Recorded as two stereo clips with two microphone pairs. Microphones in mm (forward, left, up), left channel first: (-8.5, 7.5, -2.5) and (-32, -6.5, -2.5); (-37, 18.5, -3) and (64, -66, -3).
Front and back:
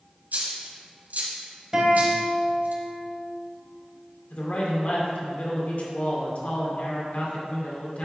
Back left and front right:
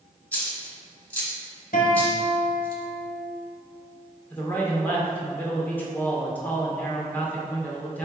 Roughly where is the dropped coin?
Behind right.